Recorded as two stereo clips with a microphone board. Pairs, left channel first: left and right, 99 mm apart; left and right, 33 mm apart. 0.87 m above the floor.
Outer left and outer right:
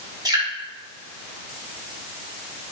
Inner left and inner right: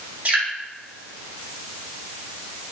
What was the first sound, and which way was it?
Dripping, 45° right (ahead or behind).